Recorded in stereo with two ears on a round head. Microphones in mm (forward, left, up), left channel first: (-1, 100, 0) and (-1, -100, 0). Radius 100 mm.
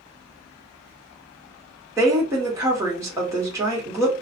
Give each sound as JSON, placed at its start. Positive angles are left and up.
{"t": 2.0, "sound": "a woman speaking", "side_deg": -15, "distance_m": 1.2}